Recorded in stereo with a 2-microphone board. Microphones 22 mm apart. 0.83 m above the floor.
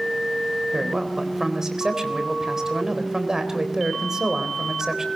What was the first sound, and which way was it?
A man speaking, 25° right (ahead or behind).